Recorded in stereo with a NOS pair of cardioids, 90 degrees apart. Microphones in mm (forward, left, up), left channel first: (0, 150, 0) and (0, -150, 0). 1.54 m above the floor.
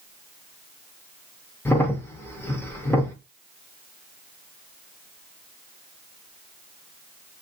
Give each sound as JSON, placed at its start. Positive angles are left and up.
{"t": 1.6, "sound": "a crack", "azimuth_deg": 5, "distance_m": 0.7}